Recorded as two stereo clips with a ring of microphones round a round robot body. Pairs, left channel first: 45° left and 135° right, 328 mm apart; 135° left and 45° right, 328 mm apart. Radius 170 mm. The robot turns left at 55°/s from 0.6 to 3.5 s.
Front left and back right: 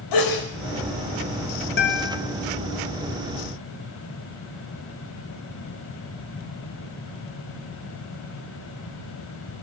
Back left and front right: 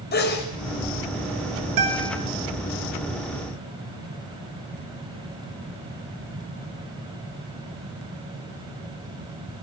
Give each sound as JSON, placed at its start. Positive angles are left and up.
{"t": 0.1, "sound": "a sneeze", "azimuth_deg": 70, "distance_m": 4.5}
{"t": 1.8, "sound": "a guitar", "azimuth_deg": -15, "distance_m": 5.0}